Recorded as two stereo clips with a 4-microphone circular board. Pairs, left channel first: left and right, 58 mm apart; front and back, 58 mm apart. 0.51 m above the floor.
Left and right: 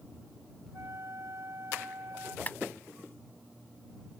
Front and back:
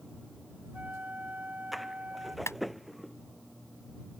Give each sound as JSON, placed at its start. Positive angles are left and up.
{"t": 0.7, "sound": "a flute", "azimuth_deg": -120}
{"t": 2.5, "sound": "a clap", "azimuth_deg": 35}